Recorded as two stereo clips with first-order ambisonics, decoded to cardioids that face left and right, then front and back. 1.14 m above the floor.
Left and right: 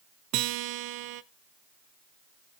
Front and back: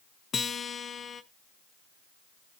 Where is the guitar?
70° right, 0.7 m.